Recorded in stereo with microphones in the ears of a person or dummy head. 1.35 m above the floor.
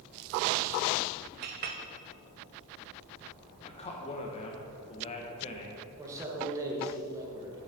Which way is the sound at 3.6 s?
30° left (ahead or behind).